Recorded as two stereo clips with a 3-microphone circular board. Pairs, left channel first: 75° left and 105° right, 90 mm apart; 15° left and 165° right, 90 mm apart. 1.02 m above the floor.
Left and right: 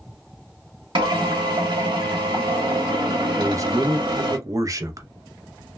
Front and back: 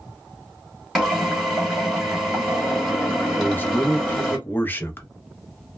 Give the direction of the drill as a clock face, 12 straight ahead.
3 o'clock.